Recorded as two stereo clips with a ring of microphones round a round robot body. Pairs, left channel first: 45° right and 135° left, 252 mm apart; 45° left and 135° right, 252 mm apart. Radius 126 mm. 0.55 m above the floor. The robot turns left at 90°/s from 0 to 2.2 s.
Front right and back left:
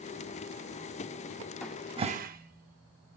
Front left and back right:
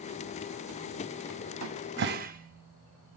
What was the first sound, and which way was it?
A cupboard door, 125° right.